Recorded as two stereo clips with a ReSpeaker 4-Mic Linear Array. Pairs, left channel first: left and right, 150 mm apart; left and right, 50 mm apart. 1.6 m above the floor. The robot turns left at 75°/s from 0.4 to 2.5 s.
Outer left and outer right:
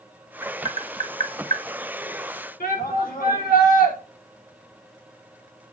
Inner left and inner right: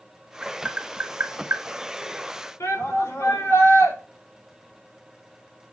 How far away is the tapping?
About 1.8 m.